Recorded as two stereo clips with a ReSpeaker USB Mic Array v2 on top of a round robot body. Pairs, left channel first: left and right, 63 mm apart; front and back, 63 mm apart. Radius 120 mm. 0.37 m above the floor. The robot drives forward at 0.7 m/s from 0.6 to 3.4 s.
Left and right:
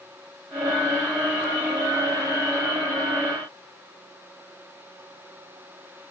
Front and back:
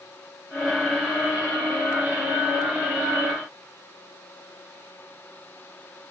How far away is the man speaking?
No man speaking in this recording.